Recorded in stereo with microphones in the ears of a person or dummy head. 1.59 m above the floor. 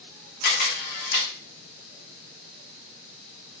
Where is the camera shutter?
50° left (ahead or behind), 0.8 m.